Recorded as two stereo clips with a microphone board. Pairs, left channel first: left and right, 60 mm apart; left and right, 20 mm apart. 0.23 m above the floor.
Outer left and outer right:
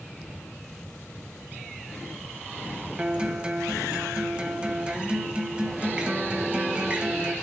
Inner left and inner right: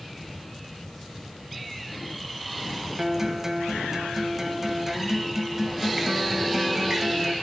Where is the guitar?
15° right (ahead or behind), 0.7 m.